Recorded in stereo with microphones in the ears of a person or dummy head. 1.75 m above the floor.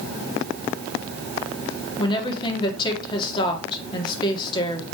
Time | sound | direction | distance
2.0 | a woman speaking | 20° left (ahead or behind) | 2.0 m